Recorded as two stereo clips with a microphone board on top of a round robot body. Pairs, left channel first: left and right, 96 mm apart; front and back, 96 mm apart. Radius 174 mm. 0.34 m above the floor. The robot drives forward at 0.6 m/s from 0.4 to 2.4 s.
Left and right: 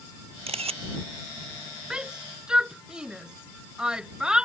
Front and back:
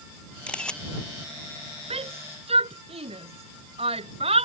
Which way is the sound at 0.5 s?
80° right.